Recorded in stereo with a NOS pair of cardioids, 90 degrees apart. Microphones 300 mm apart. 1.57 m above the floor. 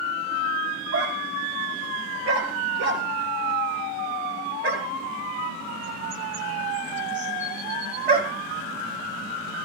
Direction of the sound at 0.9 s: 55° right.